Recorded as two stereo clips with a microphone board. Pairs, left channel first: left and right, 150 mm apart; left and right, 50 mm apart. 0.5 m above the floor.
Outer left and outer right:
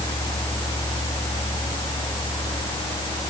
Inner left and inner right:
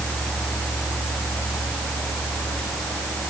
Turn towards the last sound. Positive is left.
No sound to turn to.